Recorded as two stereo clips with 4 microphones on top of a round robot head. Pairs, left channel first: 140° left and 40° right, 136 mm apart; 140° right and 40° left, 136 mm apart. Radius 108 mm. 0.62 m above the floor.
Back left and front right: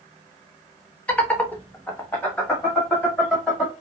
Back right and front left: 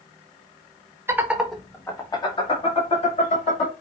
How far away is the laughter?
About 1.2 m.